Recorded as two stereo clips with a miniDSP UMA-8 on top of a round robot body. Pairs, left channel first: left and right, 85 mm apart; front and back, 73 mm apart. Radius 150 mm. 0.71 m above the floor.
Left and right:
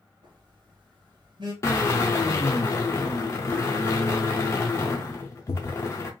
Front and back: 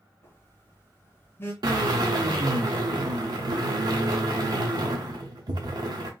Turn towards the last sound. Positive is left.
turn(degrees=150)